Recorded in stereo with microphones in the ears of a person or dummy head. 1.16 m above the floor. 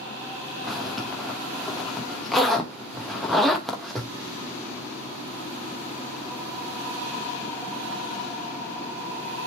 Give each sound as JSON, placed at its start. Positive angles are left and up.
{"t": 0.6, "sound": "a zipper", "side_deg": 0, "distance_m": 2.0}